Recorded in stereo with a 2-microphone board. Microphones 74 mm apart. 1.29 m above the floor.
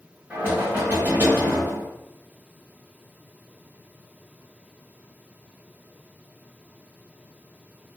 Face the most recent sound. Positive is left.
turn(degrees=-30)  # may be behind; listen again after turning